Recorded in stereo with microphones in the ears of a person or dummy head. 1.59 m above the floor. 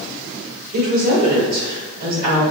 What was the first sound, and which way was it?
A woman speaking, 40° right (ahead or behind).